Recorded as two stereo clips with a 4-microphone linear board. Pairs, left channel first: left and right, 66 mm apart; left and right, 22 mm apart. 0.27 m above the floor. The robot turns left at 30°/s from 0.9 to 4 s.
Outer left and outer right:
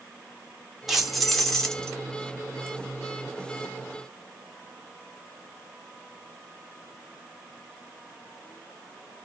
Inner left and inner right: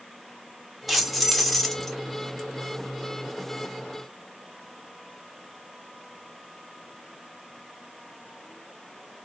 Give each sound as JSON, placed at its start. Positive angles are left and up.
{"t": 0.9, "sound": "keys jangling", "side_deg": 0, "distance_m": 1.0}